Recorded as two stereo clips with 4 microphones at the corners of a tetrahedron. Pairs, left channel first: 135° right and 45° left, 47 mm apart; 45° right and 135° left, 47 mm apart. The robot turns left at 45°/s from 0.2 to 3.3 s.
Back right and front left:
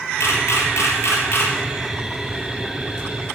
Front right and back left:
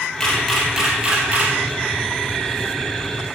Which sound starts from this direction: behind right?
A camera shutter, at 0.2 s.